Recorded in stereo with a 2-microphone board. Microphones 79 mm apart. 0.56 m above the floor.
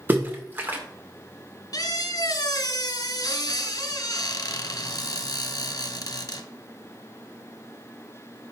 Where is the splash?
25° right (ahead or behind), 1.3 m.